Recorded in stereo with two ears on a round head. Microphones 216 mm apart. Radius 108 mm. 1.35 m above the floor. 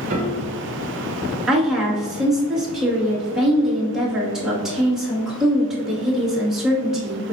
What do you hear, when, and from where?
0.1 s a piano: 30° right (ahead or behind), 1.5 m
1.5 s a woman speaking: centre (ahead or behind), 2.5 m